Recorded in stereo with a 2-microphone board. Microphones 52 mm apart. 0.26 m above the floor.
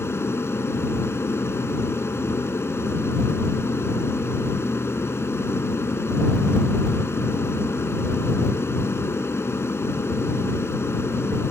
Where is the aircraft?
55° left (ahead or behind).